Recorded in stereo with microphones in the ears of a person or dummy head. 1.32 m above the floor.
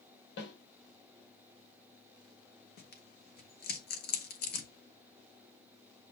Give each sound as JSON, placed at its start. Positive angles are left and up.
{"t": 0.4, "sound": "a snare drum", "side_deg": 55, "distance_m": 2.5}
{"t": 2.8, "sound": "tearing paper", "side_deg": 55, "distance_m": 1.1}